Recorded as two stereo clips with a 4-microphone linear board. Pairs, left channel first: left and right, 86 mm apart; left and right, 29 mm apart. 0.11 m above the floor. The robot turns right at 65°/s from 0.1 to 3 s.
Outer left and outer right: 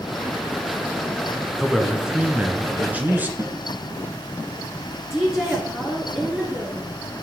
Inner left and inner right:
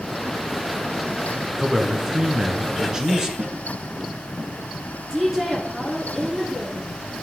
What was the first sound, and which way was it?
A man speaking, 5° left (ahead or behind).